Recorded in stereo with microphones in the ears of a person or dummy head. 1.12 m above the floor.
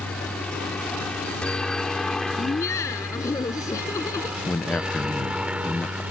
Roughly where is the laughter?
Centre.